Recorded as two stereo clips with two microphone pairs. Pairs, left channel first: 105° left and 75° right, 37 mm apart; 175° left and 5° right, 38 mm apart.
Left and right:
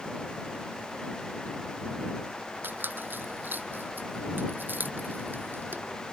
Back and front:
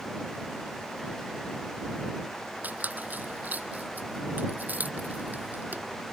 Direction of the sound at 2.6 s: 55° right.